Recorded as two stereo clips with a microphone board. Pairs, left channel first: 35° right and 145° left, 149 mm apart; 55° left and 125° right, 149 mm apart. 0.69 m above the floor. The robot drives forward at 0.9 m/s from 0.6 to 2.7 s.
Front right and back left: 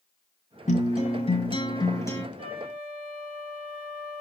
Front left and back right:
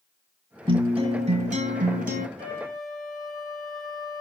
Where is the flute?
165° right, 5.5 m.